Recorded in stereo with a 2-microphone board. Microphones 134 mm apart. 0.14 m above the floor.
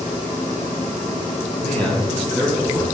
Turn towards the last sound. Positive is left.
turn(degrees=5)  # may be behind; listen again after turning